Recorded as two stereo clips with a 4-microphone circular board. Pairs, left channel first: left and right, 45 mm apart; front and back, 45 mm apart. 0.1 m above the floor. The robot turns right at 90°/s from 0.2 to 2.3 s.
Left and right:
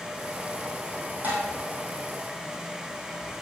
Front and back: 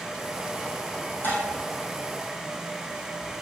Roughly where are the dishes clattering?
Ahead right.